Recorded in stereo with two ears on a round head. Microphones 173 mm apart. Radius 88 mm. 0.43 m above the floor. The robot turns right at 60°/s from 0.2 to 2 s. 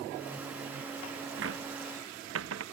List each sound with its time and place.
1.4 s a cupboard door: 70° right (ahead or behind)